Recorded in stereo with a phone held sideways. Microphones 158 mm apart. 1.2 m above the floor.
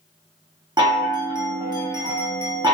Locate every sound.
0.8 s a chime: 25° right (ahead or behind), 0.8 m